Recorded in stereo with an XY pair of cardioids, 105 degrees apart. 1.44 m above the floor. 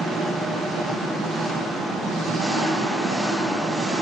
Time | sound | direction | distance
0.0 | an engine running | 60° right | 1.3 m